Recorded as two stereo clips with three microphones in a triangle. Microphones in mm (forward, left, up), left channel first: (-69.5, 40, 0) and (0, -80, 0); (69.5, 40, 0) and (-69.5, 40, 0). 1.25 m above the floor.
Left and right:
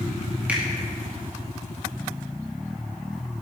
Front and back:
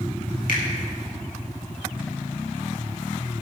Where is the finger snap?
20° left, 2.5 m.